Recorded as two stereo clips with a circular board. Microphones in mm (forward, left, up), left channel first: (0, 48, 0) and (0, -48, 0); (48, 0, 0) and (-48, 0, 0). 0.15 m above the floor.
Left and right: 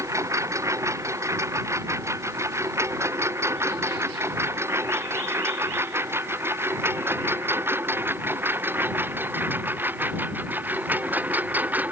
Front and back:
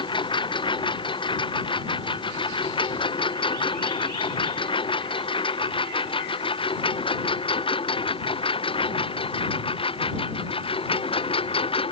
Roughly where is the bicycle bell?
No bicycle bell in this recording.